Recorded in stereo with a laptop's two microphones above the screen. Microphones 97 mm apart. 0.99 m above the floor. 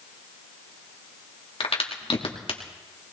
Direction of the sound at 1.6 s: 70° left (ahead or behind).